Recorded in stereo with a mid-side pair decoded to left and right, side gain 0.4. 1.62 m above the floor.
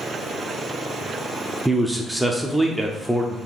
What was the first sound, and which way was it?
A man speaking, 5° right.